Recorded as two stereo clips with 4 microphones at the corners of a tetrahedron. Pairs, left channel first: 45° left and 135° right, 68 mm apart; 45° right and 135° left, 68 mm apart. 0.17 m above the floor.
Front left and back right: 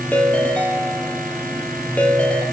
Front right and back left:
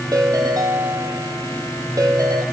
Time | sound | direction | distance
0.1 | a ringtone | 115° left | 3 m